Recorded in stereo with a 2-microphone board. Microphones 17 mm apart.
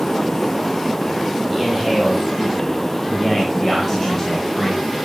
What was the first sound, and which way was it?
A man speaking, centre (ahead or behind).